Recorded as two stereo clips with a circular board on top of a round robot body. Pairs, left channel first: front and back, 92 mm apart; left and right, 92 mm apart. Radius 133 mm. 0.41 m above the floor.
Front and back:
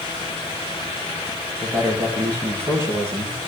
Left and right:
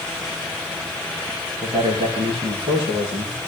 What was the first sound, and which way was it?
A man speaking, 110° right.